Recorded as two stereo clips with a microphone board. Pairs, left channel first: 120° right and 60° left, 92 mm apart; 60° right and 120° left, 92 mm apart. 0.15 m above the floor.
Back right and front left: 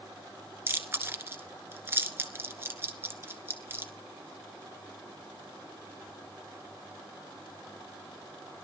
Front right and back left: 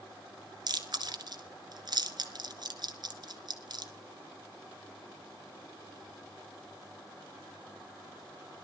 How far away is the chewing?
About 1.4 m.